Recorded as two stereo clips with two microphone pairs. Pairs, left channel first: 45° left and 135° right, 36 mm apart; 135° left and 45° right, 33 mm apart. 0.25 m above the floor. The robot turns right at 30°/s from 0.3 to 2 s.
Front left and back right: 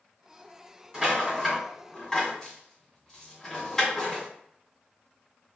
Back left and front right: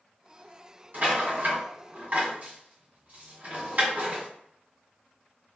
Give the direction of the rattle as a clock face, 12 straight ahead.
2 o'clock.